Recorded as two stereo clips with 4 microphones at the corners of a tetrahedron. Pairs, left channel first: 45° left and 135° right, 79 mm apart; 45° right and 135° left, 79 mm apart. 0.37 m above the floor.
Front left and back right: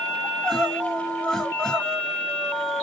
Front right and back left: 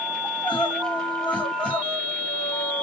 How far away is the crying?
About 1.4 m.